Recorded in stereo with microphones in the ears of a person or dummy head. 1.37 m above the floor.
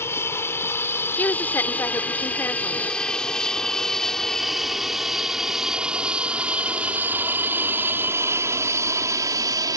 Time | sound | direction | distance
0.0 | an aircraft | 10° left (ahead or behind) | ?
1.2 | a woman speaking | 15° left (ahead or behind) | ?